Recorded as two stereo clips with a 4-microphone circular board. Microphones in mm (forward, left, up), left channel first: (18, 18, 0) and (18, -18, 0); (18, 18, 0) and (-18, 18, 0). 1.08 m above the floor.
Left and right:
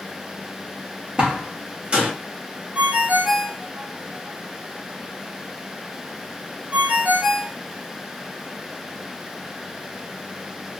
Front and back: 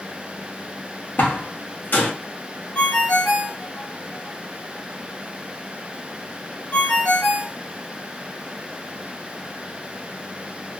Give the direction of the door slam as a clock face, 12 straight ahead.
1 o'clock.